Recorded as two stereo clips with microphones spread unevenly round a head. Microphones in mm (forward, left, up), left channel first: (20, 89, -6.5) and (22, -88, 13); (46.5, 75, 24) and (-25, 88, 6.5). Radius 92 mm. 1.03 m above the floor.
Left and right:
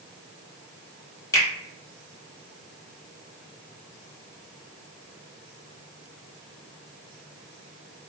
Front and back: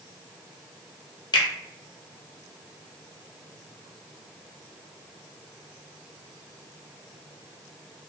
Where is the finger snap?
20° left, 1.0 m.